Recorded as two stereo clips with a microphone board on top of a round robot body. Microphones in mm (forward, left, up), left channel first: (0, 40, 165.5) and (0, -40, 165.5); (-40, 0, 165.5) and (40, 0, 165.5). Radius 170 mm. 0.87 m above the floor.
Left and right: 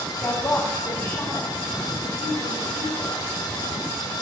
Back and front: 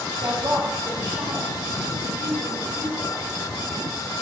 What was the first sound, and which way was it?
A woman speaking, 35° left.